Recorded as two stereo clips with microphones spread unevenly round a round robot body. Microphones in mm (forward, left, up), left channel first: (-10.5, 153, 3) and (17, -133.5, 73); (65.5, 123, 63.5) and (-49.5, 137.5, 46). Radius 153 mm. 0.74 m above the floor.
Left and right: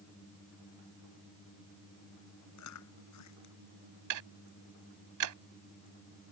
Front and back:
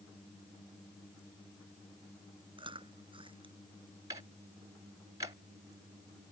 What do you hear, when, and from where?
2.6 s chewing: 130° left
4.1 s ticking: 115° right